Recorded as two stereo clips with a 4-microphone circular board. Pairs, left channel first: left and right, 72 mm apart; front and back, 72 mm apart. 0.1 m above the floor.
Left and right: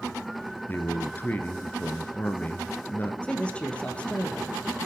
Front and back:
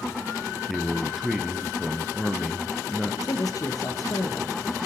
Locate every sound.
0.7 s a man speaking: 100° left, 1.4 m
3.2 s a man speaking: 20° left, 2.5 m